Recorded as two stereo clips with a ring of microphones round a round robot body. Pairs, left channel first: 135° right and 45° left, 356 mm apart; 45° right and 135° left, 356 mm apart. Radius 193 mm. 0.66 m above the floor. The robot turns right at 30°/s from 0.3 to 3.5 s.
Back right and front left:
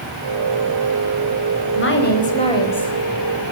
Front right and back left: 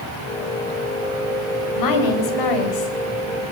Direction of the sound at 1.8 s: 80° right.